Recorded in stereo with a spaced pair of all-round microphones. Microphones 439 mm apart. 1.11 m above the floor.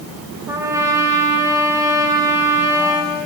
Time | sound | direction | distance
0.5 | a trumpet | 5° right (ahead or behind) | 3 m